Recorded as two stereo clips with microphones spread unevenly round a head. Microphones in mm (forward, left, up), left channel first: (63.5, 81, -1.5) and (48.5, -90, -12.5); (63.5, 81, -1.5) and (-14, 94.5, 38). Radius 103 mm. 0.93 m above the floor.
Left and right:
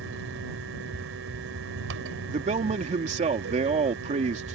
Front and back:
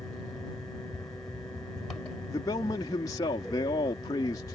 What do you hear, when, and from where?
0.0 s a fan: 95° right
2.3 s a man speaking: 45° right